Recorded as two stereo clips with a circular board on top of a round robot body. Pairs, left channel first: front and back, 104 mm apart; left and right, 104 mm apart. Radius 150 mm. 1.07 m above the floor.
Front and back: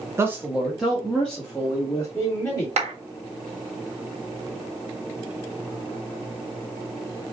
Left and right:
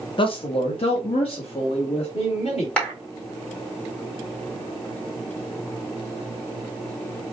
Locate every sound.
0.2 s a man speaking: 120° left, 0.9 m; by 2.7 s 70° left, 2.5 m
2.8 s a clap: 170° left, 1.8 m